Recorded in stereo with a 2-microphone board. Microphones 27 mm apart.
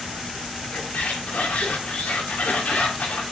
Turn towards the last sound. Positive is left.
turn(degrees=70)  # may be behind; listen again after turning